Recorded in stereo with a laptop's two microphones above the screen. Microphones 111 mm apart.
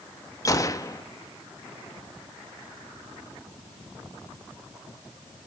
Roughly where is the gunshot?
Left.